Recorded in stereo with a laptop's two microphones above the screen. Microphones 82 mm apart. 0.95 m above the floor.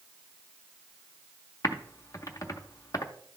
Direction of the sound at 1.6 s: 40° left (ahead or behind).